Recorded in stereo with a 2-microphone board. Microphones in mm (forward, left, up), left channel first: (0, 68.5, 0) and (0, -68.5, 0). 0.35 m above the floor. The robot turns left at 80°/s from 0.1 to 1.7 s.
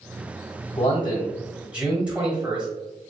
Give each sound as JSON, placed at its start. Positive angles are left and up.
{"t": 0.8, "sound": "a man speaking", "azimuth_deg": 65, "distance_m": 1.2}